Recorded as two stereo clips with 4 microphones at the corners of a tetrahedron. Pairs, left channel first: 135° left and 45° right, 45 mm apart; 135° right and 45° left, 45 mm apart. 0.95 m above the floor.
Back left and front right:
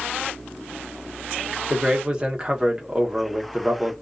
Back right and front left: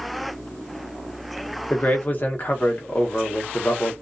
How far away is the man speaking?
About 0.8 m.